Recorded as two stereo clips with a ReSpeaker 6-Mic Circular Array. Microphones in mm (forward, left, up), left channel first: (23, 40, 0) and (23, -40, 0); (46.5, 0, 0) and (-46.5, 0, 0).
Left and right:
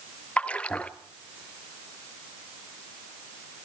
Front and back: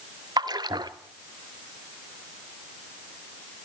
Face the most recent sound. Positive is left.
turn(degrees=160)